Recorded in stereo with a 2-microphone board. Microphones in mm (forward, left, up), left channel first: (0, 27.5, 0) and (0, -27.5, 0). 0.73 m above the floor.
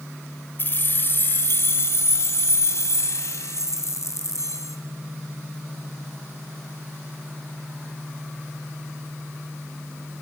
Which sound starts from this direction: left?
Keys jangling, at 0.6 s.